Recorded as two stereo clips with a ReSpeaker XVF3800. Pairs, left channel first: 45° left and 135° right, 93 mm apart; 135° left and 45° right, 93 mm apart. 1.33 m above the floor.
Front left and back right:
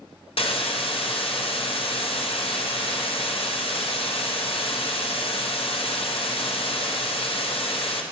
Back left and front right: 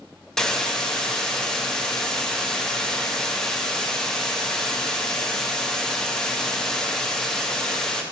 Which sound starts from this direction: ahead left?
A hiss, at 0.4 s.